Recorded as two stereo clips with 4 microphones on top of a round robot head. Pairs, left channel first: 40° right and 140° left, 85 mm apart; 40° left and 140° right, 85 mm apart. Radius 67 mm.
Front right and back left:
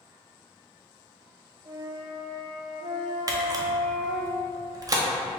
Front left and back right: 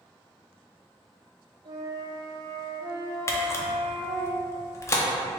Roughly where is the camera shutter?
Left.